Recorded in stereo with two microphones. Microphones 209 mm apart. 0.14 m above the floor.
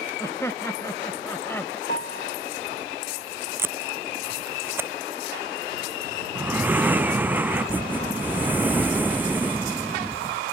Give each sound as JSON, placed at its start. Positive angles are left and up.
{"t": 0.2, "sound": "laughter", "side_deg": 15}
{"t": 1.9, "sound": "a piano", "side_deg": 50}
{"t": 3.6, "sound": "tape being pulled", "side_deg": -10}
{"t": 6.3, "sound": "breathing", "side_deg": -10}